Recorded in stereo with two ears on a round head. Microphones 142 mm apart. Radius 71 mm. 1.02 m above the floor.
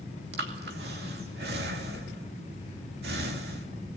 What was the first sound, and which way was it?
Breathing, 70° right (ahead or behind).